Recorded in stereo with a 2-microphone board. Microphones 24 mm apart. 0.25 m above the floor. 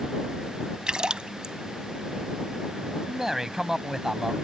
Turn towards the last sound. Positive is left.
turn(degrees=-20)  # may be behind; listen again after turning